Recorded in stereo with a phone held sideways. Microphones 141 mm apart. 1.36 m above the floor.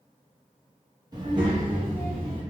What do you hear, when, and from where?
1.1 s a child speaking: 30° right (ahead or behind), 0.7 m; by 2.4 s 45° right (ahead or behind), 1.2 m